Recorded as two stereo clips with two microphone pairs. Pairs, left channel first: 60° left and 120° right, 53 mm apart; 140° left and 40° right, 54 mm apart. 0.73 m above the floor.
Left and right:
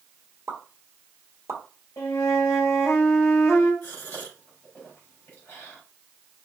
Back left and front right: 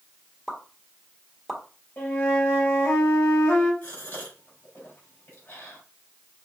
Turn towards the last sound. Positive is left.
turn(degrees=100)